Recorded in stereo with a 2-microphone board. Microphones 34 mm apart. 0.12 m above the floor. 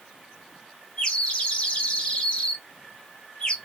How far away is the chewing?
I don't hear chewing.